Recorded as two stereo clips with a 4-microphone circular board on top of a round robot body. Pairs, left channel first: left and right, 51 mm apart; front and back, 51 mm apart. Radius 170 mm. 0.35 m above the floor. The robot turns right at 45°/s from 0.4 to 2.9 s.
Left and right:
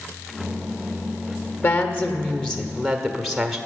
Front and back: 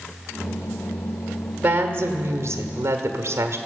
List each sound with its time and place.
1.6 s a woman speaking: 125° left, 1.5 m; by 3.6 s straight behind, 1.5 m